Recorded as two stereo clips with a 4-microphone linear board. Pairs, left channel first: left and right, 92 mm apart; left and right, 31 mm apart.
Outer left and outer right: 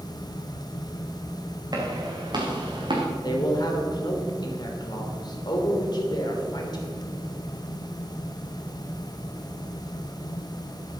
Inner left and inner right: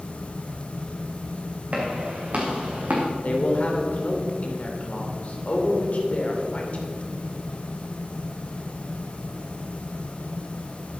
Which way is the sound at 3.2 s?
50° left (ahead or behind).